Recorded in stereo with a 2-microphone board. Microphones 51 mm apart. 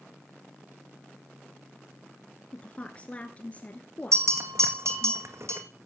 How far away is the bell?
About 1.9 m.